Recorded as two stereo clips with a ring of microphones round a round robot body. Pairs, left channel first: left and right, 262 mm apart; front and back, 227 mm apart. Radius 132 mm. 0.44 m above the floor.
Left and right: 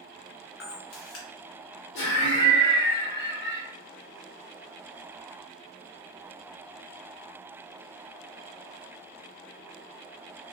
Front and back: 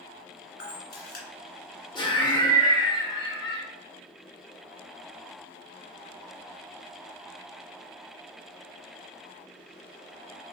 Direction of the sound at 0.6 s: 45° left.